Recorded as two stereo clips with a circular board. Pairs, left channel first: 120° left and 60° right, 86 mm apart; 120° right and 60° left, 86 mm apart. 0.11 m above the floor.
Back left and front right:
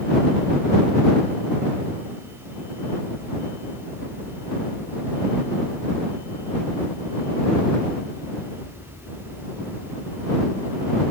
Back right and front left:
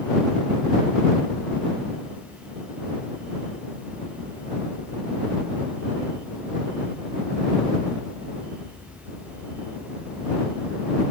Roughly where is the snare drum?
No snare drum in this recording.